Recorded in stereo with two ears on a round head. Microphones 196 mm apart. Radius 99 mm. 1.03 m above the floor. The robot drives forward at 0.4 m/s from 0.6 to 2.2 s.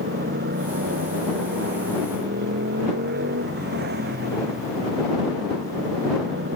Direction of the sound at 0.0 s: 45° right (ahead or behind).